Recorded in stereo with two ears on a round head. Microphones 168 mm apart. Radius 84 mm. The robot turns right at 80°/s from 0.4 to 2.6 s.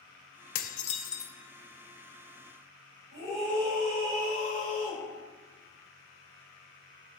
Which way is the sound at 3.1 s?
65° right (ahead or behind).